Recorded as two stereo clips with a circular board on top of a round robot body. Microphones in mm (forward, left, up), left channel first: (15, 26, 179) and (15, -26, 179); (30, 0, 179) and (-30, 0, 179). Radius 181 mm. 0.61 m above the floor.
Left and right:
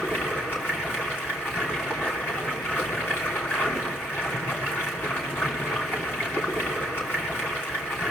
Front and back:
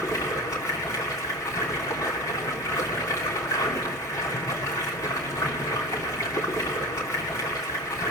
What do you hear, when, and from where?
0.0 s running water: 40° left, 3 m